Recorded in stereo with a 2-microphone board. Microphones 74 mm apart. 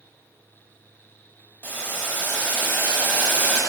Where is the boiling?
25° left (ahead or behind), 1.2 m.